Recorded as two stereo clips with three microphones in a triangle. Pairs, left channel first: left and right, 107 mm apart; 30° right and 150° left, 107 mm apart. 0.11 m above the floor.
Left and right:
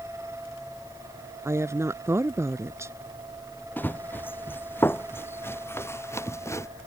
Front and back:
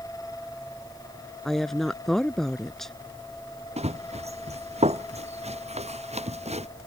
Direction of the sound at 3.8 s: 160° left.